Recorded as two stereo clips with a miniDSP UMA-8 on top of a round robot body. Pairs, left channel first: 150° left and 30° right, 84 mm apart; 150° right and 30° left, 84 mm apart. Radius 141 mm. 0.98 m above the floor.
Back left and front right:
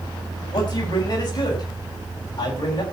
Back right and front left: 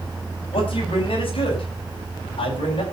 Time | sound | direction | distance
0.5 | a man speaking | 170° right | 8.5 m